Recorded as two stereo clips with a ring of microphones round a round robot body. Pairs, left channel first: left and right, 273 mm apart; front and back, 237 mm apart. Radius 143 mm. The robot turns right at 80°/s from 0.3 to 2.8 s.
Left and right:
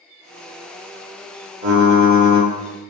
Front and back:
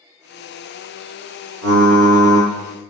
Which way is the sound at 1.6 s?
150° right.